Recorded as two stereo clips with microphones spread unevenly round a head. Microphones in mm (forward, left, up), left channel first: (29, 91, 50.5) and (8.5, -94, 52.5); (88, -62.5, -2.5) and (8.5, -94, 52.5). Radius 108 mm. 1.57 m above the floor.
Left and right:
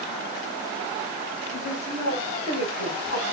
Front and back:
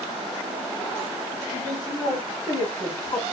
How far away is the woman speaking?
About 1.4 m.